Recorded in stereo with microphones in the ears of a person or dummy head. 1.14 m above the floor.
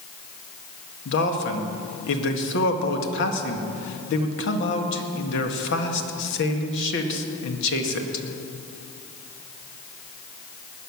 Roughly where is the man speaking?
Left.